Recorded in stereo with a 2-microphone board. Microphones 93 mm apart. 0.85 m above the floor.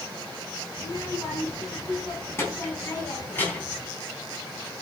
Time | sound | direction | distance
0.8 | a child speaking | 35° left (ahead or behind) | 5 m